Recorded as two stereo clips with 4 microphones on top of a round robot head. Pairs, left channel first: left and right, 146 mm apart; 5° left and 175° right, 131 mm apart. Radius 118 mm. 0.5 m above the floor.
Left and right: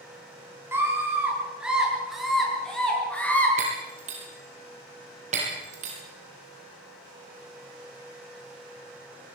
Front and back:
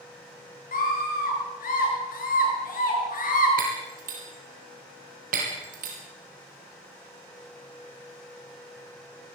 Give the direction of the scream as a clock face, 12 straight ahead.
1 o'clock.